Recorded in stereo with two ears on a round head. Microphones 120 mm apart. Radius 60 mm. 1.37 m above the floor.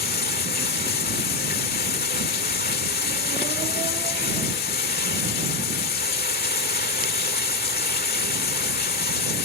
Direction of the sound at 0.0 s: 80° left.